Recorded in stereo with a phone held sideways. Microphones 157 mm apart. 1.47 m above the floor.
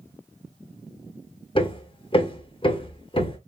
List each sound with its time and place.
1.6 s hammering: 35° left (ahead or behind), 1.3 m